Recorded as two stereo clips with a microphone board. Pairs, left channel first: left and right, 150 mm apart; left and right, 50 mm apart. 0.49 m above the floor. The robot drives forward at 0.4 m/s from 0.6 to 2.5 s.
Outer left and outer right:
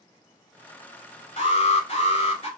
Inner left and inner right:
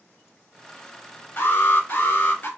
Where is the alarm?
45° left (ahead or behind), 1.8 m; by 2.5 s 40° left (ahead or behind), 1.9 m.